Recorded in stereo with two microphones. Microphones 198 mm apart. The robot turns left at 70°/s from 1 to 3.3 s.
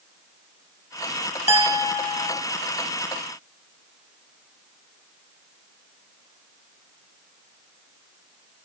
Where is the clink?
135° left, 0.9 m; by 2.4 s 70° left, 0.9 m.